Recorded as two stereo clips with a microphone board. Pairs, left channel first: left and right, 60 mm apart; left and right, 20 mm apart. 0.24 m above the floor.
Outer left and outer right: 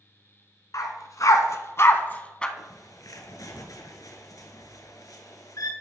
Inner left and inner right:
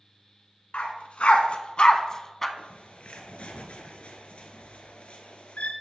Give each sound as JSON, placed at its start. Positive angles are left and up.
{"t": 0.7, "sound": "a dog barking", "side_deg": 70, "distance_m": 1.2}
{"t": 2.6, "sound": "a bird", "side_deg": 70, "distance_m": 1.1}